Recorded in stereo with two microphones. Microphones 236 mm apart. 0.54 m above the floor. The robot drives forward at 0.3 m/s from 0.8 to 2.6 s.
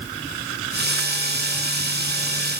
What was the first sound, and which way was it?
Only background noise.